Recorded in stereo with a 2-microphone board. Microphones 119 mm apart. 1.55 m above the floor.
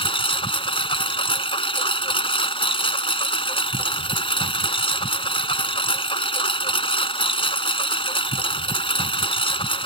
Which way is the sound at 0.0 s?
50° left (ahead or behind).